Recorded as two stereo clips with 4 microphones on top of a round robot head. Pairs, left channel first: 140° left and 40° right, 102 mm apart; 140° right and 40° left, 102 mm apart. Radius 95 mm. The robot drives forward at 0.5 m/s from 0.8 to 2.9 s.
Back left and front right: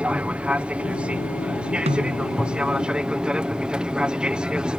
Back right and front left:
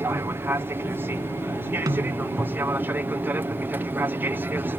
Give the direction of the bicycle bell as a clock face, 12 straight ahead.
I don't hear a bicycle bell.